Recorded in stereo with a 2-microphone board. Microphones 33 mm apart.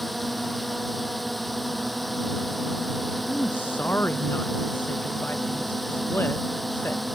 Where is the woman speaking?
85° left.